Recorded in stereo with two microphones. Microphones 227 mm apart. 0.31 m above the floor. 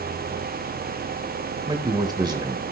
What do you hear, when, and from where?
1.7 s a man speaking: 20° right (ahead or behind), 1.0 m